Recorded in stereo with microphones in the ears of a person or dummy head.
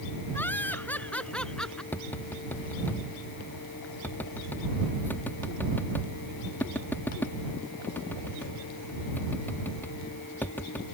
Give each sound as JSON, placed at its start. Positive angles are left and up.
{"t": 0.3, "sound": "laughter", "side_deg": 10}
{"t": 1.9, "sound": "tapping", "side_deg": 10}